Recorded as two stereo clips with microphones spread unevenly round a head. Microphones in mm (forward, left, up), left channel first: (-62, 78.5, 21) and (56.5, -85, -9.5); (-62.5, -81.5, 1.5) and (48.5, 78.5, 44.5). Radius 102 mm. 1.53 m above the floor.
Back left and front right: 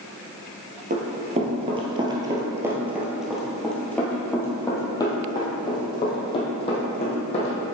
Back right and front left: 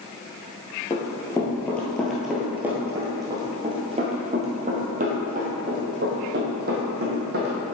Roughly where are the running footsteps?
Ahead right.